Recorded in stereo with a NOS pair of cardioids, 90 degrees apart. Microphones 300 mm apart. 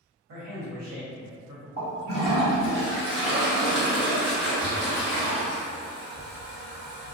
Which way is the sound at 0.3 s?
65° right.